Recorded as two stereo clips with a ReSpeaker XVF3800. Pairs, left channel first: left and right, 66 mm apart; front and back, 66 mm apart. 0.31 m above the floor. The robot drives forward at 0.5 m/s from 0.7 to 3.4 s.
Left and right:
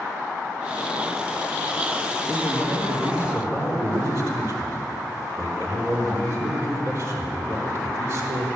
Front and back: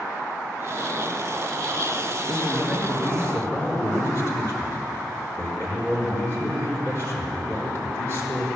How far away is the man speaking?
About 4.5 m.